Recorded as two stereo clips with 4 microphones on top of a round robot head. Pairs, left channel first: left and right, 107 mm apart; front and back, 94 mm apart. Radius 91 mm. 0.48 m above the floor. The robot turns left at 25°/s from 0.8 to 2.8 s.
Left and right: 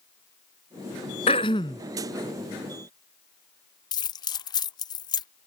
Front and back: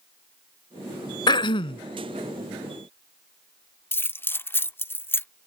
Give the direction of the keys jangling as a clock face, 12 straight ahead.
10 o'clock.